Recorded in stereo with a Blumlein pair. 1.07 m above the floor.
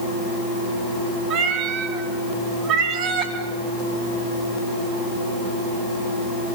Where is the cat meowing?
35° right, 4.5 m.